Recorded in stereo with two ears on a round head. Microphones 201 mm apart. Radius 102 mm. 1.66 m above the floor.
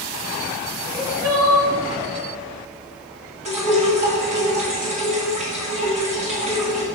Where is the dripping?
30° right (ahead or behind), 1.7 m.